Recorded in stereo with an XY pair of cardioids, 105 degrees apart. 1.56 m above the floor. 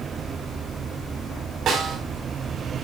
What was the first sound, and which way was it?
A snare drum, 60° right.